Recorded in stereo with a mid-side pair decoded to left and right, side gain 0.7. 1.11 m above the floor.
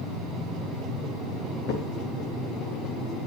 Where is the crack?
50° left, 3 m.